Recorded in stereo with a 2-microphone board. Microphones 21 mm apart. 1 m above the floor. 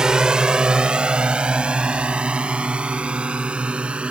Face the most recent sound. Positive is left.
turn(degrees=-75)  # may be behind; listen again after turning